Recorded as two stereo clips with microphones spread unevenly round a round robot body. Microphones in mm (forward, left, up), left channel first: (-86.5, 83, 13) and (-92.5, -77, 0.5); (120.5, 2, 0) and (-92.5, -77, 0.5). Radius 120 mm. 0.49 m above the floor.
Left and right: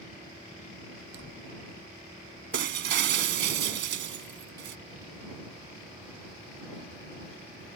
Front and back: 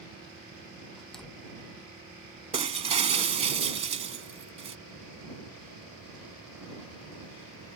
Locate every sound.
1.0 s a door slam: 70° right
2.5 s breaking glass: 95° right